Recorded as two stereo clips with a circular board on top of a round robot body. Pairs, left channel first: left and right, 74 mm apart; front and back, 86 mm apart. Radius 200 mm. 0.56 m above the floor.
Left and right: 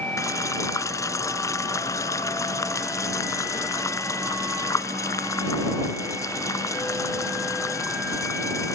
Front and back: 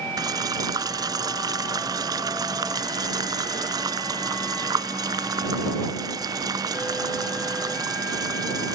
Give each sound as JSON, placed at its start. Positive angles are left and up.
{"t": 0.2, "sound": "boiling", "azimuth_deg": 135}